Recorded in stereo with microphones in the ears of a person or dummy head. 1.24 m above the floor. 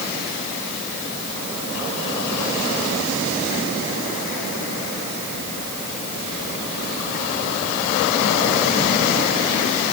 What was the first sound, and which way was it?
Only background noise.